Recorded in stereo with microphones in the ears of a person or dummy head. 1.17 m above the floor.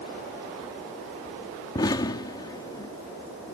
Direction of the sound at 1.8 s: 25° left (ahead or behind).